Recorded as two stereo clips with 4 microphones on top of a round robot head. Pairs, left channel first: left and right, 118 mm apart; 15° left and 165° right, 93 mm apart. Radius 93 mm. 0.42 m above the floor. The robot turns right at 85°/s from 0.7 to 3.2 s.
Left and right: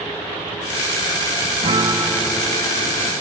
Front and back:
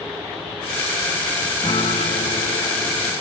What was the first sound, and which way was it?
A guitar, 50° right.